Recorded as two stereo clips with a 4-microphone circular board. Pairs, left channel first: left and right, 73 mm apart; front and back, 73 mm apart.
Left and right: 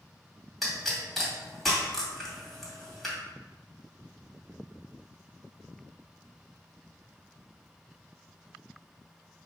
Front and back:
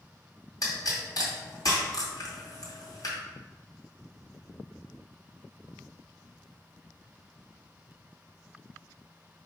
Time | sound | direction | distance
0.6 | a pop | straight ahead | 2 m